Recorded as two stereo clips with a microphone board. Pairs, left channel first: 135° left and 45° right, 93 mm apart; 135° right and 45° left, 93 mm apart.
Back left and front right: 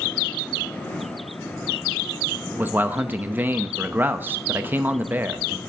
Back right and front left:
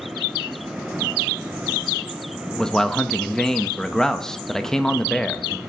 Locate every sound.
2.6 s a man speaking: 60° right, 0.5 m